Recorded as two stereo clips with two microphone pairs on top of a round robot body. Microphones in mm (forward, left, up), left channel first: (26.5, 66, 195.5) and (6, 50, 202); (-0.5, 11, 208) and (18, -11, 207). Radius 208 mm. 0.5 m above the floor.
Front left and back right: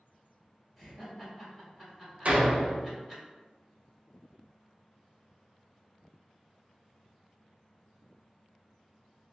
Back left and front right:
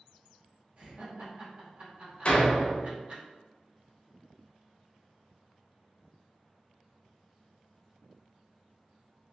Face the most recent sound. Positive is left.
turn(degrees=170)